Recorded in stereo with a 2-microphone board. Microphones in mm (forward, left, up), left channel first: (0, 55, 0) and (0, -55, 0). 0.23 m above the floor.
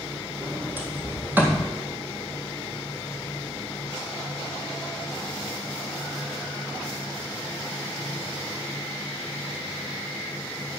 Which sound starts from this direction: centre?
A sliding door, at 0.4 s.